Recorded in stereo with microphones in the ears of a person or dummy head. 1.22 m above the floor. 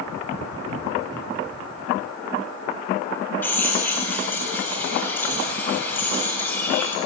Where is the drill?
10° left (ahead or behind), 4.5 m.